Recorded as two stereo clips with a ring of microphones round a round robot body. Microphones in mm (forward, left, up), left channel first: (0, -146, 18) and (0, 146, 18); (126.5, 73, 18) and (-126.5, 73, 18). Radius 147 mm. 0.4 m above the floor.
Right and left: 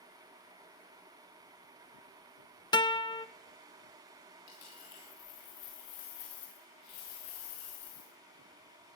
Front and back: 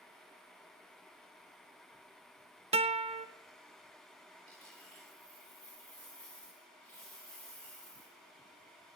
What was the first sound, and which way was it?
A guitar, 150° right.